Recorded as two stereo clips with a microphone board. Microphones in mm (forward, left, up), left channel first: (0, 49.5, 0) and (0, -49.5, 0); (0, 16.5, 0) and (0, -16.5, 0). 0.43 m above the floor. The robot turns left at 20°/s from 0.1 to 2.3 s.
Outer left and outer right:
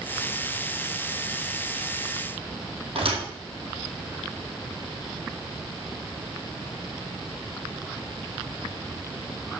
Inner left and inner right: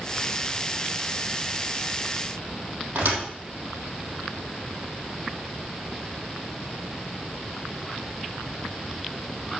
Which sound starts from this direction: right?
A thud, at 3.0 s.